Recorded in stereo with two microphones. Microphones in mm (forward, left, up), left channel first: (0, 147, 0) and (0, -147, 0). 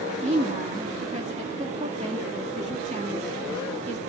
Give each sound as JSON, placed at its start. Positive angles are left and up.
{"t": 0.2, "sound": "a woman speaking", "side_deg": -25, "distance_m": 2.5}